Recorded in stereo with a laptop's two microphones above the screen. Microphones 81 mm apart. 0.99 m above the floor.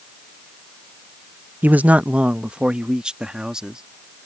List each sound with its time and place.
1.6 s a man speaking: 25° right (ahead or behind); by 3.8 s 10° right (ahead or behind)